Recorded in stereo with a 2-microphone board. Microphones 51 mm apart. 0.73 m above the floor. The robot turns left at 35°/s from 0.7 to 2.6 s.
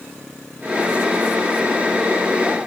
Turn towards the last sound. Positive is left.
No sound to turn to.